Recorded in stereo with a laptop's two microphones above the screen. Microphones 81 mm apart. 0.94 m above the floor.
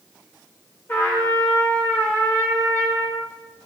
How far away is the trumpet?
About 1.1 m.